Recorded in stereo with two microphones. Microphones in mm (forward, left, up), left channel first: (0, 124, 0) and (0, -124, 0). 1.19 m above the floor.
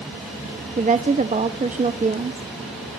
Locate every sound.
0.8 s a woman speaking: 30° right (ahead or behind), 0.6 m